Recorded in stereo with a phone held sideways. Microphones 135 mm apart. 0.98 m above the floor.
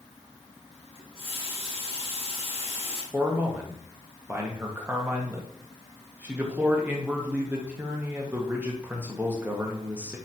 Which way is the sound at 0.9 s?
45° left (ahead or behind).